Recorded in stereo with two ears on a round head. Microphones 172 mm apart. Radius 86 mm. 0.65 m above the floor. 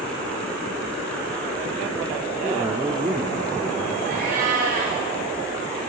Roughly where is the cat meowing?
Right.